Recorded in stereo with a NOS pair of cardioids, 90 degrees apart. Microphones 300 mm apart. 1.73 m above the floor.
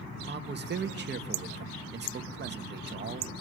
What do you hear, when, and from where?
0.3 s a man speaking: 35° right, 2.0 m